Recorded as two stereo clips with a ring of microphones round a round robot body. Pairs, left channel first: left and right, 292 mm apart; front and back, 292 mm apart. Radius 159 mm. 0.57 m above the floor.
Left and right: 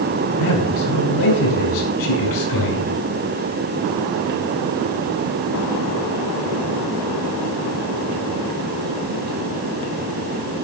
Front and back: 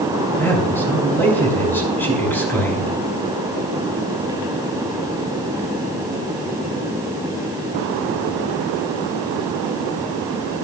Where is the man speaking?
85° left, 5.5 m.